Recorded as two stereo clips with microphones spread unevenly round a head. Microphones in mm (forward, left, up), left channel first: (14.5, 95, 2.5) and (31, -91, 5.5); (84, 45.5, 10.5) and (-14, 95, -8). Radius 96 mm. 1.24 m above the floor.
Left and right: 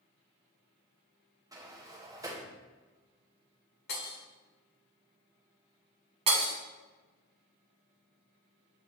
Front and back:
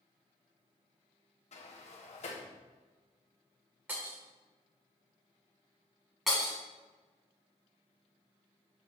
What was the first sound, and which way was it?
A sliding door, 10° right.